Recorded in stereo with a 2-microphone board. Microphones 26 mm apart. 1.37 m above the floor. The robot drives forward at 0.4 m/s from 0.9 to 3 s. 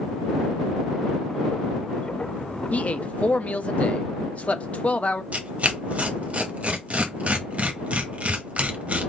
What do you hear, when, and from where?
2.7 s a man speaking: 60° left (ahead or behind), 0.7 m; by 5.2 s 55° left (ahead or behind), 0.8 m
5.3 s tearing paper: 55° right (ahead or behind), 1.0 m